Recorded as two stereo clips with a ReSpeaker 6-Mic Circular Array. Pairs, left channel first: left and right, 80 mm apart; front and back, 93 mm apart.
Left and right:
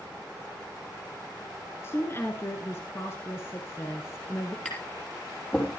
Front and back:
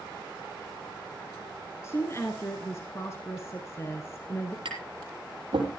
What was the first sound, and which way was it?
A woman speaking, 45° left.